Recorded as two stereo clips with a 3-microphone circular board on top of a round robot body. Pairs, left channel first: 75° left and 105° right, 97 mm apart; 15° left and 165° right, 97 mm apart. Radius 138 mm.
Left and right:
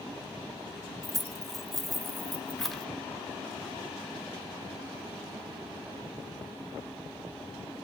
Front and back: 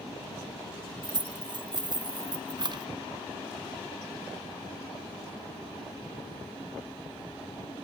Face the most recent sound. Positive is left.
turn(degrees=160)